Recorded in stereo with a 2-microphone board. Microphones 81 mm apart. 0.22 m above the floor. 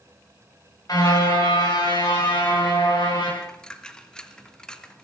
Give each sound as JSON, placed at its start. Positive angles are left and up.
{"t": 0.9, "sound": "a car horn", "side_deg": 50, "distance_m": 10.0}
{"t": 3.4, "sound": "a dropped coin", "side_deg": 10, "distance_m": 1.9}